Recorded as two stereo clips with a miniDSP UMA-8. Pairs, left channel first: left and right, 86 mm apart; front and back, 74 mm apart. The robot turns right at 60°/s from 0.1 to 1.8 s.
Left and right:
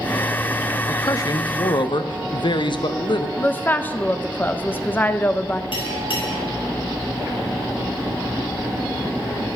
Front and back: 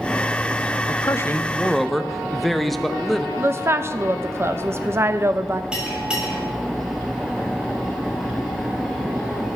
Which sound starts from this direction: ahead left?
A man speaking, at 0.9 s.